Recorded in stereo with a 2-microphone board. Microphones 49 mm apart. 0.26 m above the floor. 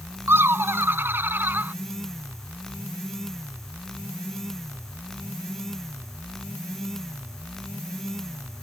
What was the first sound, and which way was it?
Laughter, 55° right (ahead or behind).